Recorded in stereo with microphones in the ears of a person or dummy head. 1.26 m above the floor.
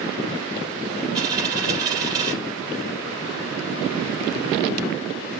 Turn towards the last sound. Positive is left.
turn(degrees=-25)  # may be behind; listen again after turning